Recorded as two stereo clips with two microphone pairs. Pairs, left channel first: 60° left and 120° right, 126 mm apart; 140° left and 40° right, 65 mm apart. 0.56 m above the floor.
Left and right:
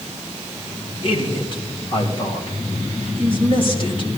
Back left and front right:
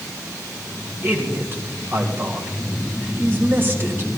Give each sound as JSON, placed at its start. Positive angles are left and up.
{"t": 1.0, "sound": "a man speaking", "azimuth_deg": 15, "distance_m": 2.5}